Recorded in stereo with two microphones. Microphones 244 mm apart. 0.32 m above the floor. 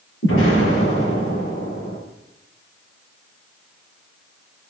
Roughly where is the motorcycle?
No motorcycle in this recording.